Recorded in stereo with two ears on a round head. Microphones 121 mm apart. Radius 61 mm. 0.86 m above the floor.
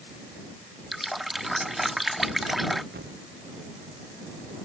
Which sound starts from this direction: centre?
A running tap, at 0.9 s.